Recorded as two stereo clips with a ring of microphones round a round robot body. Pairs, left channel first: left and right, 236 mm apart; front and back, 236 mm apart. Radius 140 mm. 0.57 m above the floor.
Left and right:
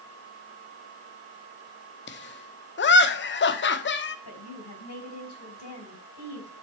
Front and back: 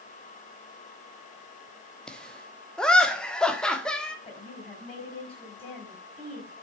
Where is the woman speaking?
70° left, 4.5 m.